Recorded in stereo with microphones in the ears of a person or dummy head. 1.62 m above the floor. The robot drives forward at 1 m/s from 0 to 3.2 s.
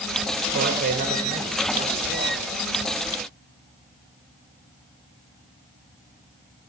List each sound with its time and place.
0.5 s a man speaking: 50° right (ahead or behind), 0.9 m; by 2.4 s 15° right (ahead or behind), 2.5 m